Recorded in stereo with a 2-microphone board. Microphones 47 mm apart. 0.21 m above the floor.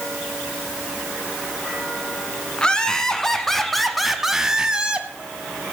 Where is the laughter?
20° left (ahead or behind), 1.7 m; by 5.1 s 25° right (ahead or behind), 1.2 m.